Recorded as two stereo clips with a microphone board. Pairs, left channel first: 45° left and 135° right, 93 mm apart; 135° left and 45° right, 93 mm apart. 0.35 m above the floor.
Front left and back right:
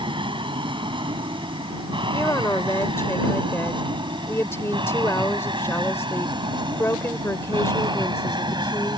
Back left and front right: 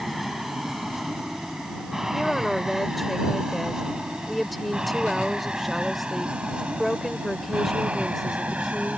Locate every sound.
0.0 s an aircraft: 130° right; by 9.0 s 115° right
2.1 s a woman speaking: 45° left